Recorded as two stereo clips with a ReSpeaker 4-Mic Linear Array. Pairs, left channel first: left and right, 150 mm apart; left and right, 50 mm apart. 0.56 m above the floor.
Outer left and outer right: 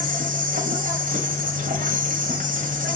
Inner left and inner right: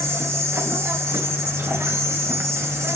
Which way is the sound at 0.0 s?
60° right (ahead or behind).